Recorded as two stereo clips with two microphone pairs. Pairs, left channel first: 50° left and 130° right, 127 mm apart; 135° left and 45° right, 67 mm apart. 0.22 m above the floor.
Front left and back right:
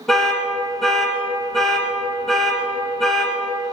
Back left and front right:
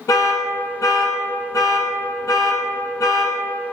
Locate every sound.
0.1 s an alarm: 140° left, 1.6 m